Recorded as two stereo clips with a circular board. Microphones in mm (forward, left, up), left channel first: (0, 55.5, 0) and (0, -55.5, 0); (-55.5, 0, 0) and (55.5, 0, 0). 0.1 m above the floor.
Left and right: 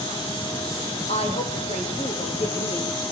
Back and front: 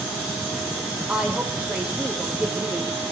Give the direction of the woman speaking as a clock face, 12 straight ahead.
9 o'clock.